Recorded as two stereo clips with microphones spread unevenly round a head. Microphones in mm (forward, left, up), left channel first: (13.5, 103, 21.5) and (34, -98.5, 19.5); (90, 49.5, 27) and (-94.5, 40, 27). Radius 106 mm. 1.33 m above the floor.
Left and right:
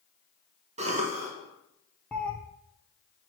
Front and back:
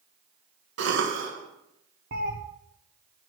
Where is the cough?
145° right, 1.3 m.